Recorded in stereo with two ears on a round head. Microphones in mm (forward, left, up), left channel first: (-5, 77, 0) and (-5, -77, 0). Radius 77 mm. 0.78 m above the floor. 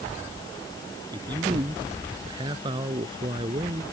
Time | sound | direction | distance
1.1 | a man speaking | 25° right (ahead or behind) | ?